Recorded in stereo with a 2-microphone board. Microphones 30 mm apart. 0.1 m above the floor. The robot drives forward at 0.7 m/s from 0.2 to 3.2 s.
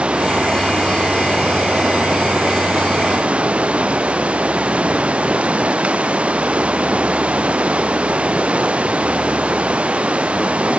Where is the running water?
40° right (ahead or behind).